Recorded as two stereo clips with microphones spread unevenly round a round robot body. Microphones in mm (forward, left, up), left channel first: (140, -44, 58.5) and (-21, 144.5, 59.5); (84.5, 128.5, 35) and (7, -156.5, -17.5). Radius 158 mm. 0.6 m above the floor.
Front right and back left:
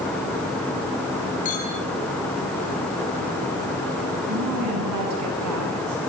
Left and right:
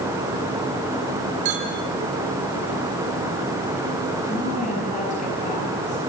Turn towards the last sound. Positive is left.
turn(degrees=145)